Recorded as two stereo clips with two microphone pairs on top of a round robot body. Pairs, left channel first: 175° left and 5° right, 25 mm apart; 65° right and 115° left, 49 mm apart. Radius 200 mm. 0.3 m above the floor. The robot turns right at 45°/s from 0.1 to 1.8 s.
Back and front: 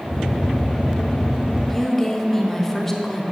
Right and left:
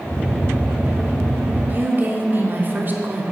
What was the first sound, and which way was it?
A woman speaking, 90° left.